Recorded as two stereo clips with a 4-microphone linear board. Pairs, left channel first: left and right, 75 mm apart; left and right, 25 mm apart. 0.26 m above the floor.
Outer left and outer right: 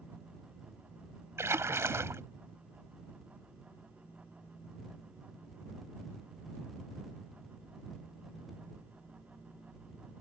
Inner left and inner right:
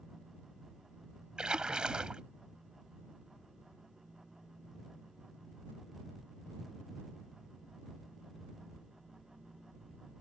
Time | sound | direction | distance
1.4 | a splash | 35° right (ahead or behind) | ?